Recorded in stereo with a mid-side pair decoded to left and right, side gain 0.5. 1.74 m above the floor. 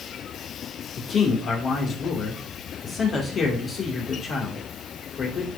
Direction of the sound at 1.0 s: 50° left.